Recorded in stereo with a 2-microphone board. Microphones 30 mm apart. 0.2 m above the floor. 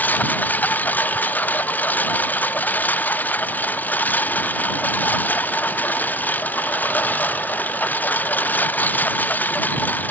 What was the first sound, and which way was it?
A lawn mower, 75° left (ahead or behind).